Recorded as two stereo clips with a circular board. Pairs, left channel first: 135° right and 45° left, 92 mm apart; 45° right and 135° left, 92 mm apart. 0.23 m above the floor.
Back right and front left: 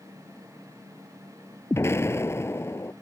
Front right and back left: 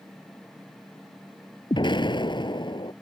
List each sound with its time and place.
1.7 s an explosion: 75° right